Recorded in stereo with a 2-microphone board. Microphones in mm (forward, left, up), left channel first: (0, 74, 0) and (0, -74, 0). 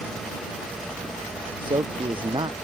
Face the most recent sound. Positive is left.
turn(degrees=-35)  # may be behind; listen again after turning